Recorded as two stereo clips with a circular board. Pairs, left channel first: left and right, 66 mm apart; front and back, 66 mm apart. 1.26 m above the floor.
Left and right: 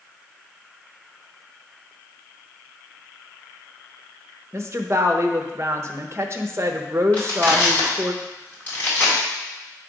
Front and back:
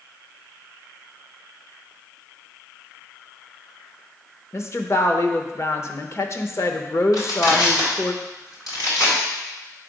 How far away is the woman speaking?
About 0.8 m.